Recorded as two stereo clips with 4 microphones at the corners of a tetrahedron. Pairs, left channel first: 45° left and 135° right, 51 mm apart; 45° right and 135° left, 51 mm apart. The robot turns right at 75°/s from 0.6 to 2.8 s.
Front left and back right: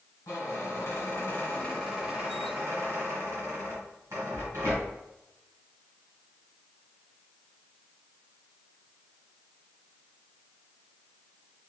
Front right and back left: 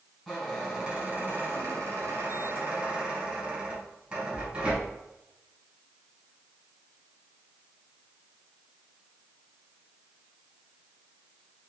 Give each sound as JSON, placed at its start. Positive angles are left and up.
{"t": 0.3, "sound": "a squeak", "azimuth_deg": 40, "distance_m": 1.6}